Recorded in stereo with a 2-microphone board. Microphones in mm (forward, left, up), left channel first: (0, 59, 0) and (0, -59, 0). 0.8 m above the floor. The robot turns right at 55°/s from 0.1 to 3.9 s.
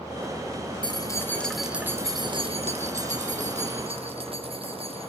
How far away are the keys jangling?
About 1.4 m.